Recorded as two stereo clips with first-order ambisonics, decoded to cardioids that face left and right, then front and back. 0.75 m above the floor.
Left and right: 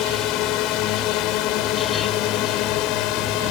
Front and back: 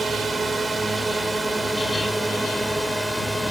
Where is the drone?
105° left; by 3.5 s 95° left.